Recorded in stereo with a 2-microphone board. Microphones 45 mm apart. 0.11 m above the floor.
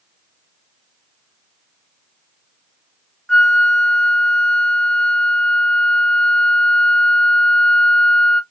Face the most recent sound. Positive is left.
turn(degrees=15)  # may be behind; listen again after turning